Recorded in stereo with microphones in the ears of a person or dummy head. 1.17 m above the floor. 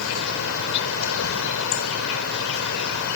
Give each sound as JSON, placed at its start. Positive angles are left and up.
{"t": 0.0, "sound": "an insect", "side_deg": 80}